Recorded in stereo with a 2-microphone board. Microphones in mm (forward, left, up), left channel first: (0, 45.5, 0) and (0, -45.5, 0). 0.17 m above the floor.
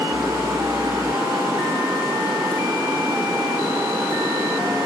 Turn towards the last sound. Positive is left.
turn(degrees=-35)  # may be behind; listen again after turning